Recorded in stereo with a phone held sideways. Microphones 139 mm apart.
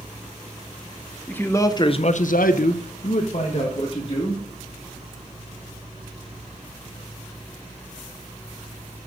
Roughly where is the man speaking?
Centre.